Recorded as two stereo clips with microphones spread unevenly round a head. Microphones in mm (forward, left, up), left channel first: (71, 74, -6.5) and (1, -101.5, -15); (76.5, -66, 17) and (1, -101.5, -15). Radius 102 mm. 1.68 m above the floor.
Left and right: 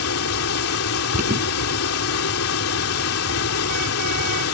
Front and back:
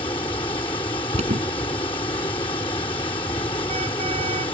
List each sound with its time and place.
0.0 s running water: 80° left
1.1 s an alarm: 165° right